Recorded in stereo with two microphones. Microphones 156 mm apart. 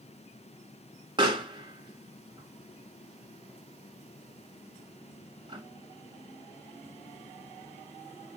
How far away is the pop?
About 1.4 m.